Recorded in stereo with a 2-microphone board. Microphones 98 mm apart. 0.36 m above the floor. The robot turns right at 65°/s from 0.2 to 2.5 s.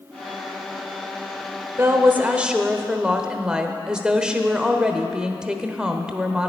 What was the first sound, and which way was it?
A woman speaking, 25° right (ahead or behind).